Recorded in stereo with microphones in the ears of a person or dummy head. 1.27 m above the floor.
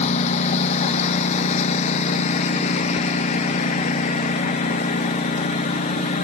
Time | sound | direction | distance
0.0 | a lawn mower | 30° left (ahead or behind) | ?